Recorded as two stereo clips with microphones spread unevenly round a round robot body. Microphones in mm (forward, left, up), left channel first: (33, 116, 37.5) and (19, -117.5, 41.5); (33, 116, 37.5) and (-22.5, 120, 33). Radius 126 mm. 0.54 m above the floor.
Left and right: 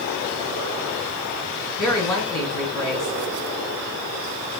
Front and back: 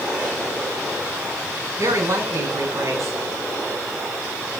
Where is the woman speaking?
160° left, 2.5 m.